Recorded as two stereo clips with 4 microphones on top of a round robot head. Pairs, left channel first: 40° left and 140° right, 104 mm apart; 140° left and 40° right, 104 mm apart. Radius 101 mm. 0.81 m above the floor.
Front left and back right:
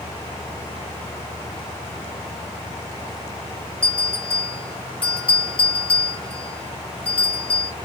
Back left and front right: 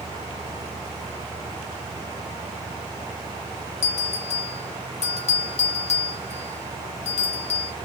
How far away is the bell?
About 0.8 m.